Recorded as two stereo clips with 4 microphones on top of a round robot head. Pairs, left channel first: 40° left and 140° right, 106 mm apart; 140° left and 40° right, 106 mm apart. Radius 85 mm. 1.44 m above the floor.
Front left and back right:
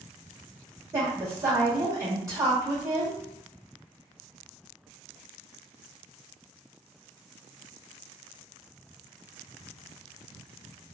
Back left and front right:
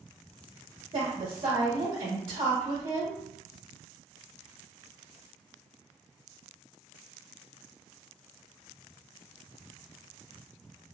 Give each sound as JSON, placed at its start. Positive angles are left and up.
{"t": 0.9, "sound": "a woman speaking", "azimuth_deg": -85, "distance_m": 1.0}